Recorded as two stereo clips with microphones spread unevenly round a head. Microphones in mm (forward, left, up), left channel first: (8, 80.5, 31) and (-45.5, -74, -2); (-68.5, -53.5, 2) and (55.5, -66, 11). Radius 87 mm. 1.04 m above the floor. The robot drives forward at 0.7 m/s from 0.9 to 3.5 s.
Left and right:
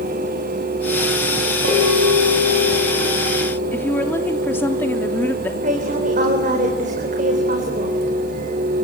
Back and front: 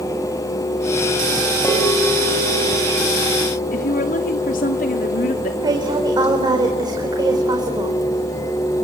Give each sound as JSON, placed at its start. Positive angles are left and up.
{"t": 1.6, "sound": "a bell", "azimuth_deg": -115, "distance_m": 5.0}
{"t": 3.7, "sound": "a woman speaking", "azimuth_deg": 150, "distance_m": 2.5}
{"t": 5.6, "sound": "a woman speaking", "azimuth_deg": -60, "distance_m": 4.0}